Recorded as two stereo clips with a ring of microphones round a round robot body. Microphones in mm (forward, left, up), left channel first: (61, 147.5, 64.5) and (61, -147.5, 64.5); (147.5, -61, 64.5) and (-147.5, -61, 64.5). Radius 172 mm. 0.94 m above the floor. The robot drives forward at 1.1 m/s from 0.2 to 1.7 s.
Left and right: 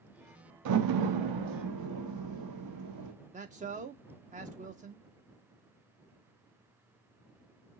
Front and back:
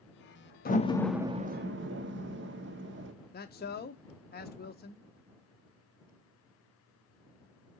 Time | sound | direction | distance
0.7 | a door slam | 60° right | 1.0 m
3.3 | a man speaking | 40° right | 0.7 m